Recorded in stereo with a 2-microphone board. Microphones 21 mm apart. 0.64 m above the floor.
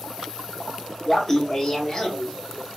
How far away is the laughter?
About 0.6 m.